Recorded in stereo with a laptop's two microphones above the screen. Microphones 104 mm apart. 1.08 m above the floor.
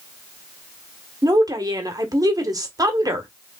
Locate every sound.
1.2 s a woman speaking: 35° right (ahead or behind), 1.0 m